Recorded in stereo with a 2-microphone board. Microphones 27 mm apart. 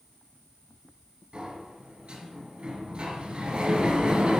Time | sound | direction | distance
1.3 | a sliding door | 40° right (ahead or behind) | 2.5 m